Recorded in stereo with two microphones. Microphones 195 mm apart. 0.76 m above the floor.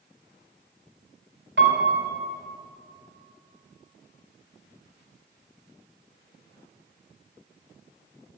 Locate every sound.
1.6 s a piano: 75° right (ahead or behind), 3 m